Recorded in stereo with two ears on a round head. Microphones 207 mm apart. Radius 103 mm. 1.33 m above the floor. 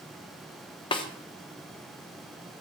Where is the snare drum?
20° left (ahead or behind), 0.7 m.